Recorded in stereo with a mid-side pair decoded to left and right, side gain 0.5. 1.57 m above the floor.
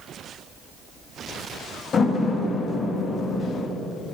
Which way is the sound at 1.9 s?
45° left.